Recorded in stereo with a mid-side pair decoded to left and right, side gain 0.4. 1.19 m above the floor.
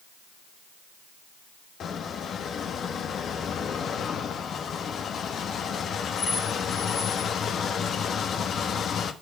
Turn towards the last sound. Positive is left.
turn(degrees=65)